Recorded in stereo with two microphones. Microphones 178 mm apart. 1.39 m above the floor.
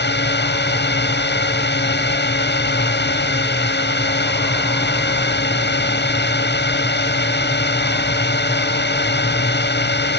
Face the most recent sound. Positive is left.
turn(degrees=75)  # may be behind; listen again after turning